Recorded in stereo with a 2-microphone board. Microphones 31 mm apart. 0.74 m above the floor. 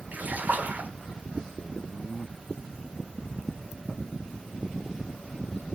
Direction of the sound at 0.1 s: 50° right (ahead or behind).